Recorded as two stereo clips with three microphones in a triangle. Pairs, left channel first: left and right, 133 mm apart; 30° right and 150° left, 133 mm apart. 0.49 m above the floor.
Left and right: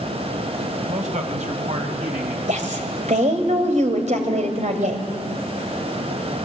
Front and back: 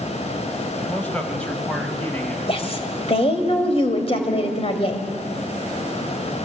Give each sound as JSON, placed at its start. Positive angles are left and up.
{"t": 0.9, "sound": "a man speaking", "azimuth_deg": -110, "distance_m": 2.5}
{"t": 2.5, "sound": "a woman speaking", "azimuth_deg": -70, "distance_m": 3.0}